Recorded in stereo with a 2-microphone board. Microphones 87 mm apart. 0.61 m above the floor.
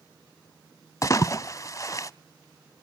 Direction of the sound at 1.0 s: 40° left (ahead or behind).